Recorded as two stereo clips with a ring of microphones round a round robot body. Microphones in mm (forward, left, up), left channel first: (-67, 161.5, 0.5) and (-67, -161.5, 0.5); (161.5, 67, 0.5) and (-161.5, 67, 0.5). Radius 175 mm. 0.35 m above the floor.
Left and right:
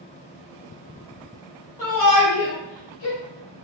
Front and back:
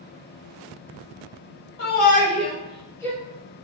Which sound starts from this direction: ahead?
A shout, at 1.8 s.